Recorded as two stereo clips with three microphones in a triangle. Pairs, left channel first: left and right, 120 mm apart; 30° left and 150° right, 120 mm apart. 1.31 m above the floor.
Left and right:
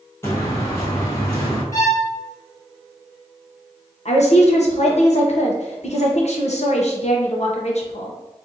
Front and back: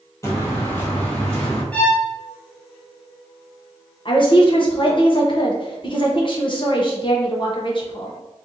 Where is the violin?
95° left, 1.1 m.